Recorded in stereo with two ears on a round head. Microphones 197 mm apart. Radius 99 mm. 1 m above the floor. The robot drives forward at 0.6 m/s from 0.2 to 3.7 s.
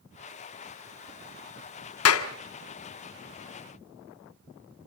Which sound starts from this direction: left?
A clap, at 2.0 s.